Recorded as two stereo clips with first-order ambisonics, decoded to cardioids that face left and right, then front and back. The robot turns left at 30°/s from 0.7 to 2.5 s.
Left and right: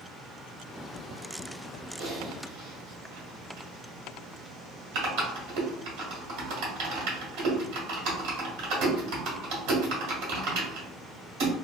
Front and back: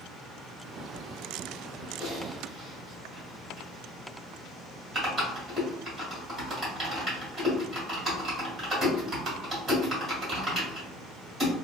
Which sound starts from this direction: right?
Typing on a keyboard, at 2.0 s.